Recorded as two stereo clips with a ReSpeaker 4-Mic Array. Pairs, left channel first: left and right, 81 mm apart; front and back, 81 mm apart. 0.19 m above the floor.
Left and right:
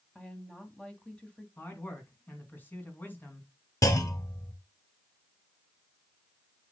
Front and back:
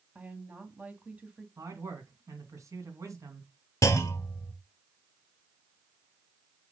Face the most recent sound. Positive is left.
turn(degrees=50)